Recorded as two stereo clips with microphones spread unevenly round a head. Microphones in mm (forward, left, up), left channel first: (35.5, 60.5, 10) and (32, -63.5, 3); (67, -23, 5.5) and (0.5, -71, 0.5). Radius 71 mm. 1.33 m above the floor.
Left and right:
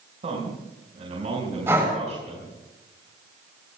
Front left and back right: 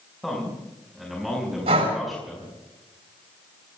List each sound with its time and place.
0.2 s a man speaking: 55° right, 6 m
1.7 s breathing: 165° right, 4.5 m